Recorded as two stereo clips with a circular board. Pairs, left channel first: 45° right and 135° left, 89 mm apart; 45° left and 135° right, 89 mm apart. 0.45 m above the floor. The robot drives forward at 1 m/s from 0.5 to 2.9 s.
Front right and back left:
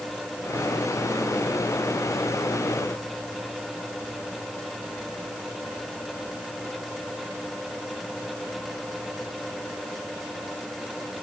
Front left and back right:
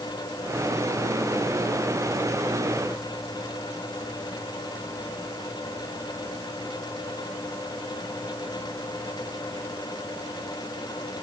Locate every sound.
Only background noise.